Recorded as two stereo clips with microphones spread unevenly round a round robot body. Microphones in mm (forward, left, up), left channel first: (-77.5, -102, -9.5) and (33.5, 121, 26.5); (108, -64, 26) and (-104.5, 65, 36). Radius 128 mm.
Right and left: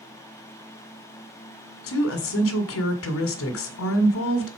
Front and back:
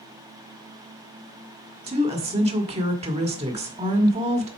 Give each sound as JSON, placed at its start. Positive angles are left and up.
{"t": 1.9, "sound": "a woman speaking", "azimuth_deg": -145, "distance_m": 1.8}